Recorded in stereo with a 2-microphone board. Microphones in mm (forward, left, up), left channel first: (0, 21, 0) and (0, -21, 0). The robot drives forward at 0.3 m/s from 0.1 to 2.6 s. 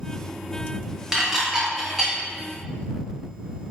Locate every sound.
1.1 s dishes clattering: 15° right (ahead or behind), 1.2 m; by 2.2 s 10° right (ahead or behind), 1.5 m